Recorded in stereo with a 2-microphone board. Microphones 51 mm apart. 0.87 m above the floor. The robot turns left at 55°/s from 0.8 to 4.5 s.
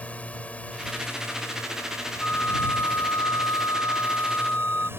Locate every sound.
0.0 s a drone: 155° left; by 5.0 s 50° right
2.2 s a flute: 160° left; by 4.9 s 30° left